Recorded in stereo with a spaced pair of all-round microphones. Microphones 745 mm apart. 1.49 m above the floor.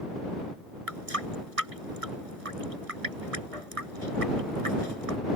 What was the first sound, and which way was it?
A running tap, 45° right (ahead or behind).